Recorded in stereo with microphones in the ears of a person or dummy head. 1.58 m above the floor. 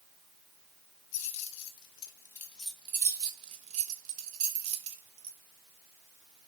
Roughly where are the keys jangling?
Left.